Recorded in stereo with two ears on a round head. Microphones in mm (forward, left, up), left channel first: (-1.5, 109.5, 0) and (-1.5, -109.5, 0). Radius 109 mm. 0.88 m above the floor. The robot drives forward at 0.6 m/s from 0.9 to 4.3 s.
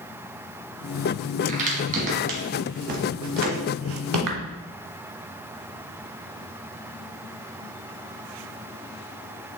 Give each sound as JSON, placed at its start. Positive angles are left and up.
{"t": 1.5, "sound": "a crack", "side_deg": -30, "distance_m": 2.5}